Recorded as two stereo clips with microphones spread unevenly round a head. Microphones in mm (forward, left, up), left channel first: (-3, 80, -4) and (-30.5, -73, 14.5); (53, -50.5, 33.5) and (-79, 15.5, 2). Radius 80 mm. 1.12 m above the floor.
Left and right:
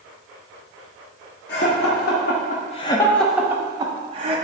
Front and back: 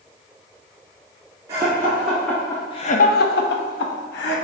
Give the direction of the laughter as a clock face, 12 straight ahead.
9 o'clock.